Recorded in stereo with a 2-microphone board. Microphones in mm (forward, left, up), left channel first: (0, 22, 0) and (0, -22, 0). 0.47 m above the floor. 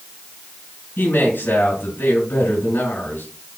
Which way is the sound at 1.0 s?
55° left (ahead or behind).